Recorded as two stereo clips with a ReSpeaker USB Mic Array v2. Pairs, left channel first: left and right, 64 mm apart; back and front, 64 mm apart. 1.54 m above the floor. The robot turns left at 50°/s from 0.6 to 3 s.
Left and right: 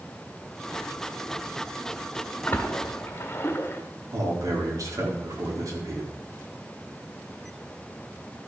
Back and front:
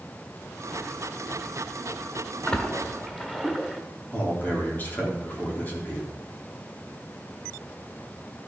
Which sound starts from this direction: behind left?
A splash, at 2.5 s.